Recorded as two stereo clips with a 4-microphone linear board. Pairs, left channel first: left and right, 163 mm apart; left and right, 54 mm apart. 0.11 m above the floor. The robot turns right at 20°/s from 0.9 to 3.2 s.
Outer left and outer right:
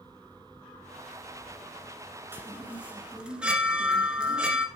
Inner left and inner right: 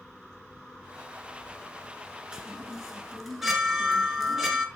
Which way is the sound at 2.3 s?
15° right (ahead or behind).